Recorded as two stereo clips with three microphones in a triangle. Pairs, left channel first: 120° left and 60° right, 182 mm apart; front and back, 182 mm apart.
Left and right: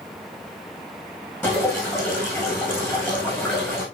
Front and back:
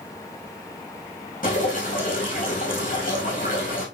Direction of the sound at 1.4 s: 45° left.